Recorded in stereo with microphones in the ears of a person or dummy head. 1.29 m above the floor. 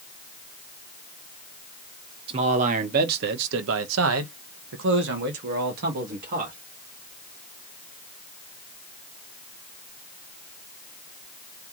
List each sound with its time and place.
2.3 s a man speaking: 30° right (ahead or behind), 1.1 m; by 6.5 s 50° right (ahead or behind), 1.9 m